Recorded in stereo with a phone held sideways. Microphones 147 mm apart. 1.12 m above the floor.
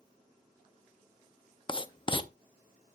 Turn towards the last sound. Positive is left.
turn(degrees=35)  # may be behind; listen again after turning